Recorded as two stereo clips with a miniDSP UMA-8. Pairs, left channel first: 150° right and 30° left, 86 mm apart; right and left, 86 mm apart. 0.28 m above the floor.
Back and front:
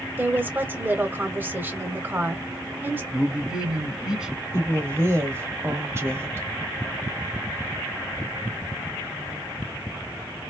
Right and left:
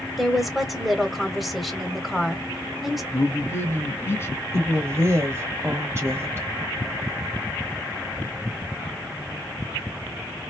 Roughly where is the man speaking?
Ahead right.